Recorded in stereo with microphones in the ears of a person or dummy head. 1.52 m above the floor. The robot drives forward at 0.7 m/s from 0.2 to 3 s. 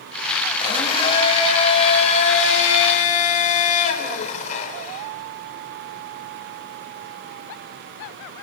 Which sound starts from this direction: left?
A blender, at 0.6 s.